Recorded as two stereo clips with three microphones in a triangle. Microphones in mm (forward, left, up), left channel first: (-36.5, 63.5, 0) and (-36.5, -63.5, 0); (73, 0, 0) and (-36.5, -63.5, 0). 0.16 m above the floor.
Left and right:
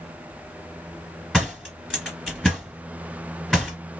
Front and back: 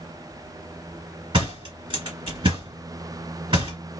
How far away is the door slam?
About 1.7 m.